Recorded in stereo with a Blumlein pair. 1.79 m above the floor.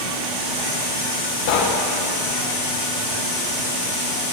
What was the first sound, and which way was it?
Knocking, 50° left.